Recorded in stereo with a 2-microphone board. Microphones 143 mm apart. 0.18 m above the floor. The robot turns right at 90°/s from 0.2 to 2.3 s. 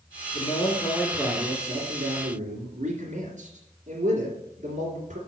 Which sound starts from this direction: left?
A man speaking, at 0.3 s.